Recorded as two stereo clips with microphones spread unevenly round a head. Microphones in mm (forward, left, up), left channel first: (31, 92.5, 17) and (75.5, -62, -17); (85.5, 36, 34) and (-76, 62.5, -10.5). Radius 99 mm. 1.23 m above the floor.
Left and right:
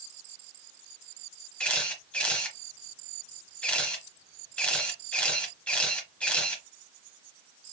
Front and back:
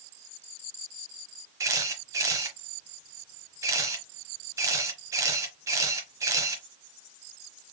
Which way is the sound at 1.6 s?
90° left.